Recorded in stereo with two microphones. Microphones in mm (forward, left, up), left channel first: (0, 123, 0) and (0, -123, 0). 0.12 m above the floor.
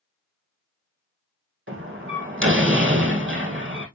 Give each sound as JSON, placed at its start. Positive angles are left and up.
{"t": 1.7, "sound": "a door slam", "side_deg": -50, "distance_m": 3.5}